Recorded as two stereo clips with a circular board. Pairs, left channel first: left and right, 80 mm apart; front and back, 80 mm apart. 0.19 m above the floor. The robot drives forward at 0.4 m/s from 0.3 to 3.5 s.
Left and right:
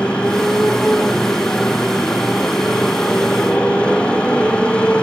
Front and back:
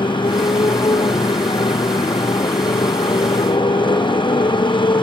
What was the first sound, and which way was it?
A motorcycle, 10° left.